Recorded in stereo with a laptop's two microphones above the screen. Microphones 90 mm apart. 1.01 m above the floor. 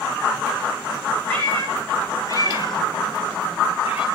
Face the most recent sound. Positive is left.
turn(degrees=80)